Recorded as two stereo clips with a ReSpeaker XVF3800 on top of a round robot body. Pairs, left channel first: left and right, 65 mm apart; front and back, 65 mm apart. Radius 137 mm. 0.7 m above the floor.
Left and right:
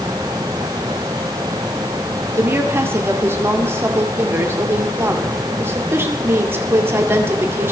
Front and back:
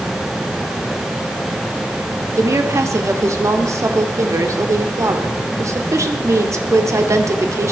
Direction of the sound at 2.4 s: 140° right.